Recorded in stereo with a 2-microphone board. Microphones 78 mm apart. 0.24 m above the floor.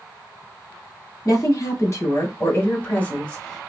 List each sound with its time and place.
1.2 s a woman speaking: 45° left (ahead or behind), 1.7 m; by 3.7 s 5° left (ahead or behind), 1.1 m